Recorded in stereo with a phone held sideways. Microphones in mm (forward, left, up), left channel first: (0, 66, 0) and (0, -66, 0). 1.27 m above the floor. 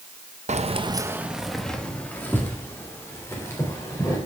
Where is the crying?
No crying in this recording.